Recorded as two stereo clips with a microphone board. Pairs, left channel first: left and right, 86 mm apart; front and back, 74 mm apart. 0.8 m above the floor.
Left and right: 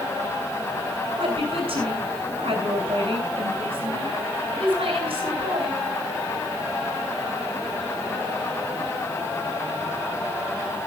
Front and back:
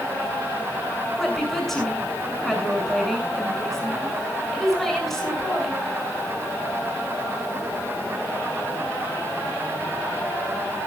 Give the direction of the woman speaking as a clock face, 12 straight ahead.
3 o'clock.